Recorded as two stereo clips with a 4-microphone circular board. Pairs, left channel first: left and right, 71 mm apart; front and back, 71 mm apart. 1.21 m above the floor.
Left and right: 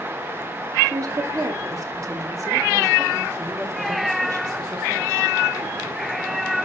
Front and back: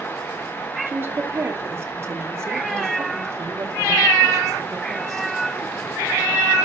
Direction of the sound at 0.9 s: 120° right.